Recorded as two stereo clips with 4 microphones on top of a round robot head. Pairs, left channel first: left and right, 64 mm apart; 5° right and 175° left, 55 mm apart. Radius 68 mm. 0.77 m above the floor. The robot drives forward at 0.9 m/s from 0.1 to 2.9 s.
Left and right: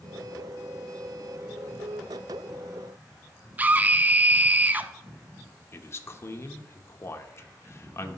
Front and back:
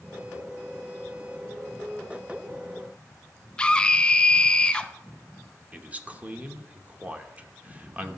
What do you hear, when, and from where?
3.6 s a scream: 55° right, 0.6 m
5.7 s a man speaking: 120° left, 1.0 m